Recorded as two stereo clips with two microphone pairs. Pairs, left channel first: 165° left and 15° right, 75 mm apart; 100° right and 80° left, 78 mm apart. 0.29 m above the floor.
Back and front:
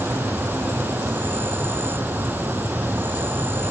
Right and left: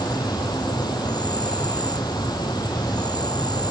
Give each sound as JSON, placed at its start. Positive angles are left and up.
{"t": 0.0, "sound": "an insect", "azimuth_deg": -75}